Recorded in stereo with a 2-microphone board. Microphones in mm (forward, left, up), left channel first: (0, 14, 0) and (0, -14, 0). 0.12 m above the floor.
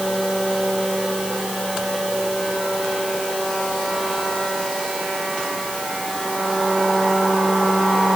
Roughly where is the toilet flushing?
No toilet flushing in this recording.